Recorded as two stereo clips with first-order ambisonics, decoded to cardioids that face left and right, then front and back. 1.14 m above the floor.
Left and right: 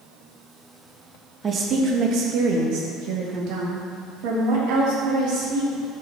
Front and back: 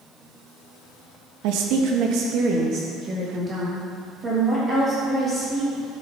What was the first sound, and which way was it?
A woman speaking, 160° right.